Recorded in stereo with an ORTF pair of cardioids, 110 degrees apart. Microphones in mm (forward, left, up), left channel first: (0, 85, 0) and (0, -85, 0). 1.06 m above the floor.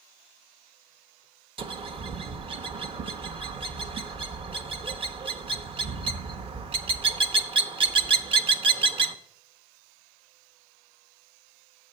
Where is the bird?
35° right, 0.7 m.